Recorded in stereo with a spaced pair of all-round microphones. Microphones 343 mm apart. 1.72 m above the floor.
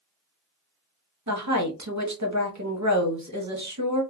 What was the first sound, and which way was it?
A woman speaking, 55° right (ahead or behind).